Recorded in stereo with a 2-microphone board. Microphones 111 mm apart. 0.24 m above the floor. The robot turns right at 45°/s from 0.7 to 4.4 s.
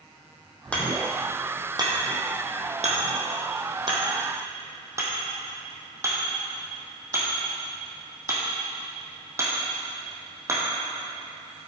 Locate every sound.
0.7 s hammering: 10° left (ahead or behind), 2 m; by 10.6 s 25° right (ahead or behind), 2 m